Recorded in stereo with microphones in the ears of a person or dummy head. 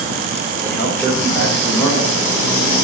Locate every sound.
0.6 s a man speaking: 10° left (ahead or behind), 6 m